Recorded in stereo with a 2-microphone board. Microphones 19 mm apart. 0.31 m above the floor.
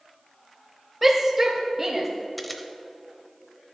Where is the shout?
10° right (ahead or behind), 0.9 m; by 2.1 s 25° right (ahead or behind), 1.6 m.